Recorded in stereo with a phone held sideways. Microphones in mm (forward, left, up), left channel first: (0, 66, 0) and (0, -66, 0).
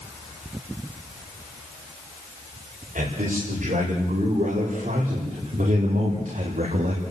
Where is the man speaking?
80° right, 6 m; by 7.0 s 85° right, 2.5 m.